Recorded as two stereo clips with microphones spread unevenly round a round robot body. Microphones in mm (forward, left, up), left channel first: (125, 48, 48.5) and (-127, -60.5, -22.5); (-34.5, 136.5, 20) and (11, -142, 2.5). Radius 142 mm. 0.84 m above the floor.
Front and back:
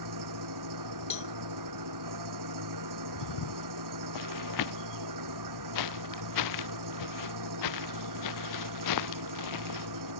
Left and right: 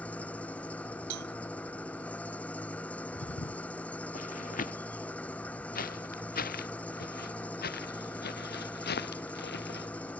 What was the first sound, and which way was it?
An engine running, 175° right.